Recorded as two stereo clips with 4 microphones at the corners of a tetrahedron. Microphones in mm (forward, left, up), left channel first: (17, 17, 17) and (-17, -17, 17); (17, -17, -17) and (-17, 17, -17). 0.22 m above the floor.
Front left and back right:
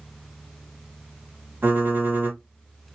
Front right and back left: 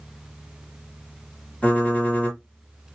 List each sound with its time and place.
1.6 s typing on a keyboard: 100° right, 3.5 m